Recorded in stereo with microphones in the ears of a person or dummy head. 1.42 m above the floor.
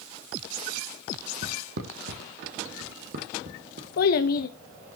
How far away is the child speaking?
About 1.2 m.